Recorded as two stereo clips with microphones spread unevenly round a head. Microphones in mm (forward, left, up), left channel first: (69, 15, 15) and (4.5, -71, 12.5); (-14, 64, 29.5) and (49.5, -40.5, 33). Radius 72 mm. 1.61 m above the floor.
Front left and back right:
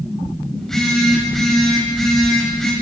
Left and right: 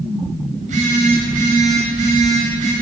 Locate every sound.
0.6 s a phone buzzing: 35° right, 8 m